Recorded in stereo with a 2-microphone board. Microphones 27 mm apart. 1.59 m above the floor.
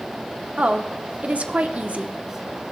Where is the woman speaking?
65° right (ahead or behind), 0.8 m.